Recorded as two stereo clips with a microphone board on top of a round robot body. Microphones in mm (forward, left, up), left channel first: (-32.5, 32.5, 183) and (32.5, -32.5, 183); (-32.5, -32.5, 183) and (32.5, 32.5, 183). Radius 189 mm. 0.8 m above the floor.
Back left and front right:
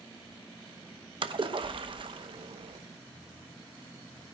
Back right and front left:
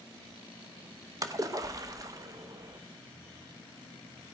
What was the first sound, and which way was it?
A splash, 10° right.